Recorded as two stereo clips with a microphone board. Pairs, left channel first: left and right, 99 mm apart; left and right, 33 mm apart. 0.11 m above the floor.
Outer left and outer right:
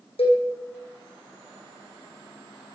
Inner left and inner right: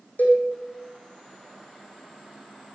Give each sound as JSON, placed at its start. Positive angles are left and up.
{"t": 0.2, "sound": "a cowbell", "side_deg": 75, "distance_m": 4.0}